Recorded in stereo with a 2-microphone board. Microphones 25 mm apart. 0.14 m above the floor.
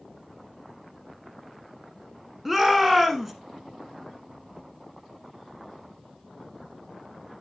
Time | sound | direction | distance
2.5 | a shout | 10° right (ahead or behind) | 1.1 m